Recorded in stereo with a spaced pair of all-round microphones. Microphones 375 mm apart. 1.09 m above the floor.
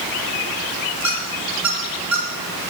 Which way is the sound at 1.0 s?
50° right (ahead or behind).